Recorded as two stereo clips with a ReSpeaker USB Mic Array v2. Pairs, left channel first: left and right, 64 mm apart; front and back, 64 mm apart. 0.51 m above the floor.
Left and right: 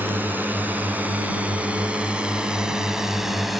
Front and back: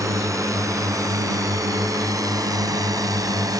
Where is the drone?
150° right; by 3.6 s 175° right.